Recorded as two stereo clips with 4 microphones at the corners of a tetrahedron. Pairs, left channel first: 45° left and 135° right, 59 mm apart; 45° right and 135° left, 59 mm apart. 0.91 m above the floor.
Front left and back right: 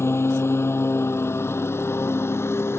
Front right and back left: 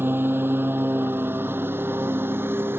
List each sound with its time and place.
0.0 s a lawn mower: 85° left